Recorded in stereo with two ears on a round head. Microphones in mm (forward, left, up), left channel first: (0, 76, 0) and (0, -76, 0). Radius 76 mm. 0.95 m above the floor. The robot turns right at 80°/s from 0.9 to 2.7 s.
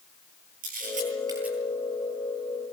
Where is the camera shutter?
55° right (ahead or behind), 9 m; by 1.6 s centre (ahead or behind), 9 m.